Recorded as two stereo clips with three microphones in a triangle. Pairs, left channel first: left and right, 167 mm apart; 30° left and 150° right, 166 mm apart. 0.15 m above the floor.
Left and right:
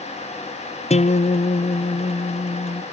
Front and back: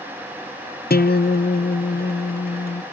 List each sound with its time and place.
0.9 s a guitar: 45° left, 0.6 m